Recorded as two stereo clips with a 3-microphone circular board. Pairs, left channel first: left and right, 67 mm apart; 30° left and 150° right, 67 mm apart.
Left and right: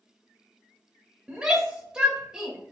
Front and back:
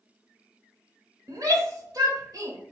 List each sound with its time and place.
1.3 s a shout: 165° right, 2.5 m